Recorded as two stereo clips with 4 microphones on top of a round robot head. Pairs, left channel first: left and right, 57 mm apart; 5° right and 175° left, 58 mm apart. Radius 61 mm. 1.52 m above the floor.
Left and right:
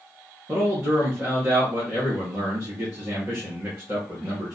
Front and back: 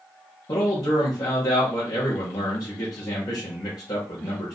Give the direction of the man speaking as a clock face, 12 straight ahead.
1 o'clock.